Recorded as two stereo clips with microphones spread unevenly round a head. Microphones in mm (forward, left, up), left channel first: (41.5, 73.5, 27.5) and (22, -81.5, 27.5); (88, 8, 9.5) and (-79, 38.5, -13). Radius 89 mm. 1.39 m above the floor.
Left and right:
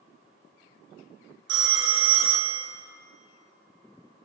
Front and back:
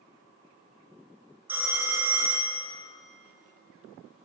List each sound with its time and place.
1.5 s a phone ringing: 105° right, 1.0 m